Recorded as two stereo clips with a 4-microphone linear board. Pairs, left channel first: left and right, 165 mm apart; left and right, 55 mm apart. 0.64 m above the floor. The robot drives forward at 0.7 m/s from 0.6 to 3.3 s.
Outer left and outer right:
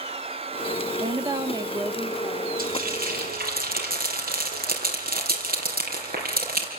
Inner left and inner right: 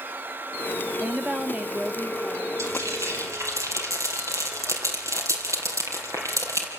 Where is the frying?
65° right (ahead or behind), 4 m; by 6.7 s 75° right (ahead or behind), 4 m.